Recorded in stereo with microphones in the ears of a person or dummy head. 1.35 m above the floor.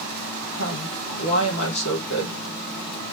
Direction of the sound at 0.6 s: 75° left (ahead or behind).